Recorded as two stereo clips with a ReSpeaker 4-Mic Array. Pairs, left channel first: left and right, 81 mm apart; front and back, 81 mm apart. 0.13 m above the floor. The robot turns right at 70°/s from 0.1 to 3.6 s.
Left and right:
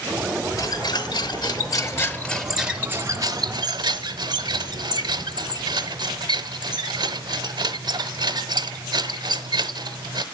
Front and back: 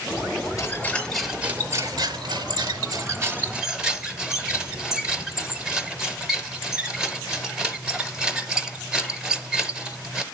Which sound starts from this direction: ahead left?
A squeak, at 0.6 s.